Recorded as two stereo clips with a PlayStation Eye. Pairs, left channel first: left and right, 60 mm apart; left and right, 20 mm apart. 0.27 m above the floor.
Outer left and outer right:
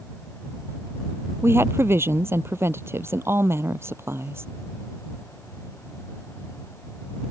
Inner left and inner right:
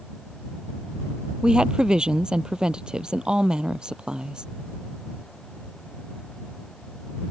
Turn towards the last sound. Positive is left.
turn(degrees=-45)  # may be behind; listen again after turning